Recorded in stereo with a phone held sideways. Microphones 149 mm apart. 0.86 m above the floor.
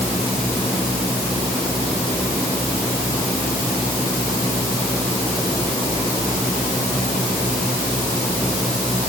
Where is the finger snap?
No finger snap in this recording.